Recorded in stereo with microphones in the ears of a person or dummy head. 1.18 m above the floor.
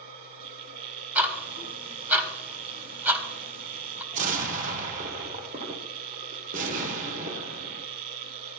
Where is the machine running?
50° right (ahead or behind), 1.1 m.